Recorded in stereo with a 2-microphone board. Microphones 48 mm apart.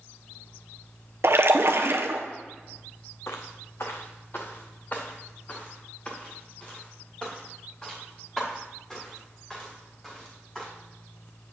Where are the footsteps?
70° left (ahead or behind), 1.0 m; by 10.7 s 10° left (ahead or behind), 5 m.